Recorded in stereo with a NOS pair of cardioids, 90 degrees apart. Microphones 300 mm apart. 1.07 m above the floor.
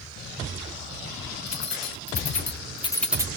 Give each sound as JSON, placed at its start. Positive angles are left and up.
{"t": 1.5, "sound": "keys jangling", "azimuth_deg": 60, "distance_m": 2.5}